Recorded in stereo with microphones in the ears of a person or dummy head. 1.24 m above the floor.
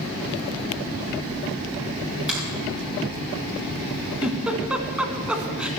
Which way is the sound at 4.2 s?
5° right (ahead or behind).